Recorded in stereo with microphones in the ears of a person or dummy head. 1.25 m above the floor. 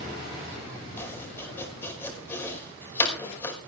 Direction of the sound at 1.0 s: 15° left (ahead or behind).